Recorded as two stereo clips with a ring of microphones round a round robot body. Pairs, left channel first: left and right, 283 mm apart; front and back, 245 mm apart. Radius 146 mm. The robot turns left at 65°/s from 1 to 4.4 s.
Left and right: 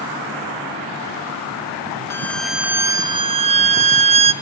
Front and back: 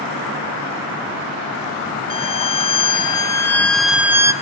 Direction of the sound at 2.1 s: 25° left.